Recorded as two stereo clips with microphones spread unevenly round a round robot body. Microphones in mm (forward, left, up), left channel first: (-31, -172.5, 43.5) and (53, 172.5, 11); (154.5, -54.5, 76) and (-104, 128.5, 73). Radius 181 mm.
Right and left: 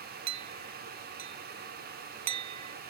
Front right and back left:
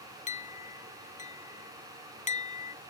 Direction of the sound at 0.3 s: 35° left.